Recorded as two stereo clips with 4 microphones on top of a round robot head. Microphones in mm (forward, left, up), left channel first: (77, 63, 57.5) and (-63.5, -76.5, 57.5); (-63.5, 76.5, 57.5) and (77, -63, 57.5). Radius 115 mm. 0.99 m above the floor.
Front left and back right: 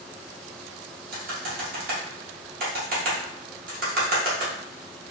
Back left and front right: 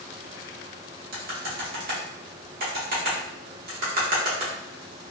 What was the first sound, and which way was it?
Typing on a keyboard, 90° right.